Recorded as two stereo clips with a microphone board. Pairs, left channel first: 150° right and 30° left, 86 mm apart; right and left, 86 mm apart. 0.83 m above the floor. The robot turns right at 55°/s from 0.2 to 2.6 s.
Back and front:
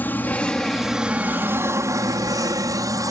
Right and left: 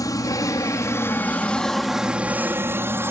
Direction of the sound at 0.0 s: 90° right.